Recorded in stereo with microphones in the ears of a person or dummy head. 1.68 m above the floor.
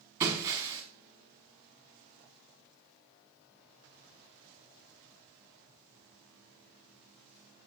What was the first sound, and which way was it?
Breaking glass, 10° right (ahead or behind).